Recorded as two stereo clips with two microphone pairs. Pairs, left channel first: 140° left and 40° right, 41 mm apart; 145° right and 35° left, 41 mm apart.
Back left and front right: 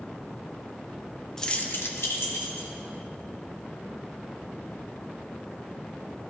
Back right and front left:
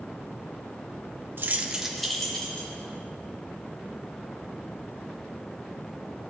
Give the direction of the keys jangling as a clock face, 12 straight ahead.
10 o'clock.